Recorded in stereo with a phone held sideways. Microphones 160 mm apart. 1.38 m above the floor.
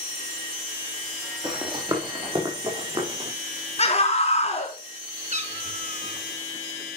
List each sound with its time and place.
1.4 s running footsteps: 25° right (ahead or behind), 3 m; by 3.3 s 35° right (ahead or behind), 4.5 m
3.8 s a scream: 40° left (ahead or behind), 4 m
5.3 s a cat meowing: 50° right (ahead or behind), 1.9 m